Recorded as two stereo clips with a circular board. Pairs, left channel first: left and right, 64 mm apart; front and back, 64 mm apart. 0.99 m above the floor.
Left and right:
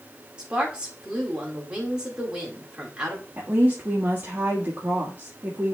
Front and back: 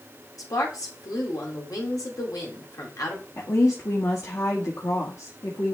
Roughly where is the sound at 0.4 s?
Ahead.